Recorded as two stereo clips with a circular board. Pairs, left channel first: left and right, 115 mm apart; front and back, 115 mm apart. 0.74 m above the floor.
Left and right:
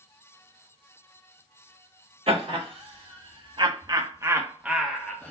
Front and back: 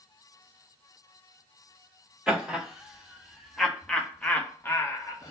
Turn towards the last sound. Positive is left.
turn(degrees=30)